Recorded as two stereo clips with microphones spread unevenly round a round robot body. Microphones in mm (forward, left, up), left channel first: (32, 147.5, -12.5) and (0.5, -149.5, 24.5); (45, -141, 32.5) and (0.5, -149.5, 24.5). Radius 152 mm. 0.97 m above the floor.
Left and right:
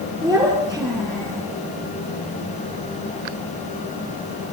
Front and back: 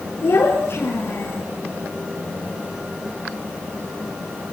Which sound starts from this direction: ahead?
A child speaking, at 0.2 s.